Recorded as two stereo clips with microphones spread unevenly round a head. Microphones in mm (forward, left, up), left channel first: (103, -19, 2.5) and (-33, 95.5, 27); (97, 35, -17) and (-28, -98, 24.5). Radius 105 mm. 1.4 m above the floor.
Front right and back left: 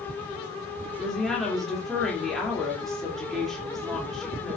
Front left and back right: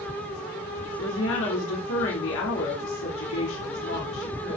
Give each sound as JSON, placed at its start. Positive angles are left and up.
{"t": 1.0, "sound": "a woman speaking", "azimuth_deg": 50, "distance_m": 3.0}